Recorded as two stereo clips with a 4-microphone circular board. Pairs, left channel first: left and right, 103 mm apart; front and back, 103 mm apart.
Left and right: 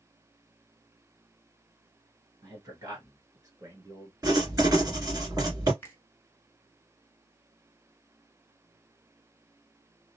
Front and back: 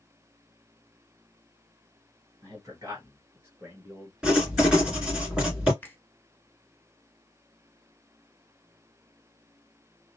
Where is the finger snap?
50° left, 0.9 m.